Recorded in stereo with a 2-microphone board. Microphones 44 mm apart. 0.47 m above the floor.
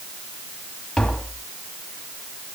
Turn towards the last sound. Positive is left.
turn(degrees=5)  # may be behind; listen again after turning